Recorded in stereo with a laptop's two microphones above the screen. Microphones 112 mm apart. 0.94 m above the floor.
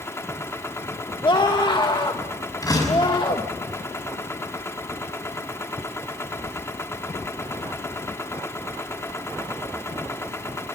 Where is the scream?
40° left (ahead or behind), 1.3 m.